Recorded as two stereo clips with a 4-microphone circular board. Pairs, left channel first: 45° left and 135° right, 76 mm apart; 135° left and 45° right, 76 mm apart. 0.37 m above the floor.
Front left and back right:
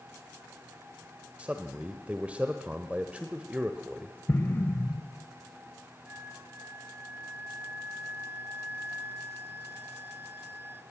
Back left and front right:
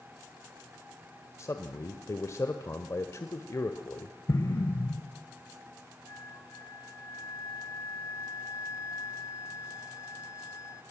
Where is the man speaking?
160° left, 1.2 m.